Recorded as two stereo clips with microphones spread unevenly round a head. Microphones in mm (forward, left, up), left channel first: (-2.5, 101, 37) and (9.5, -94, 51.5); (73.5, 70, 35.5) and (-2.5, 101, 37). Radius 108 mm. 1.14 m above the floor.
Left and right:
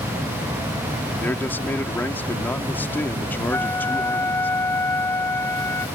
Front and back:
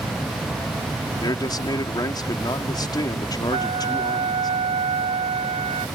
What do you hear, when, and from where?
1.1 s a man speaking: 15° left
3.5 s a flute: 175° left